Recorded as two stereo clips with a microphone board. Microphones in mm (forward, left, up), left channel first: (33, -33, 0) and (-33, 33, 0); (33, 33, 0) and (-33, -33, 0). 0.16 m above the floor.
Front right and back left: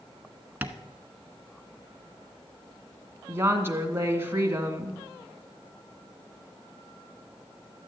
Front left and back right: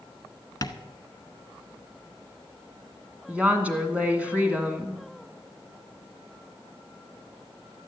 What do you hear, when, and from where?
0.6 s tapping: 70° left, 0.9 m
3.3 s a woman speaking: 165° left, 1.8 m